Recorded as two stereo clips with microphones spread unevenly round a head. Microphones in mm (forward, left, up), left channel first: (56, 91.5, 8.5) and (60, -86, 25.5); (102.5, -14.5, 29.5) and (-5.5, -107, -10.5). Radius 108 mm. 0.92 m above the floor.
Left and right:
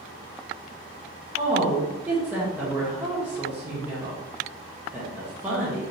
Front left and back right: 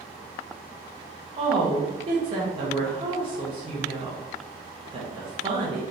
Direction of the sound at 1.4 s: 175° right.